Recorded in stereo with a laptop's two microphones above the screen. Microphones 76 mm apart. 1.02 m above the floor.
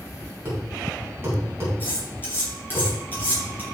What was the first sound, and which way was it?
A thud, 35° right (ahead or behind).